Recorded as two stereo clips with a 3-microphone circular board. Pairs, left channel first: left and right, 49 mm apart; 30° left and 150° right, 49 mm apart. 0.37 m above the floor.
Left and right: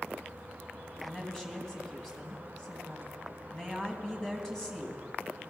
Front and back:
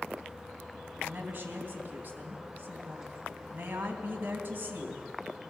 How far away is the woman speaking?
About 3 m.